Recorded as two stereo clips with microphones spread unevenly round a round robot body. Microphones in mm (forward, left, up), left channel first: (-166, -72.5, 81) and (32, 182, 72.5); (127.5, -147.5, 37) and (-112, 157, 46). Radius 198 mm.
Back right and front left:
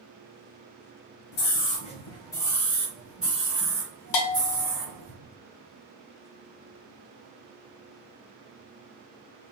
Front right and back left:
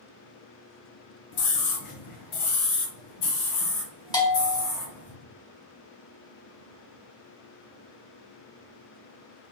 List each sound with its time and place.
1.3 s a scream: 80° right, 1.3 m; by 5.1 s 25° right, 3.5 m
4.1 s a bell: 130° right, 1.4 m